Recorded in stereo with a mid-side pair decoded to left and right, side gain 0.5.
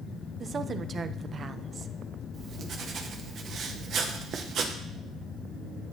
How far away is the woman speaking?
About 0.7 m.